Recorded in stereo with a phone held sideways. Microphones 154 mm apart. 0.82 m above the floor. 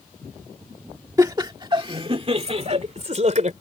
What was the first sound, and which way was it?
Laughter, 25° right (ahead or behind).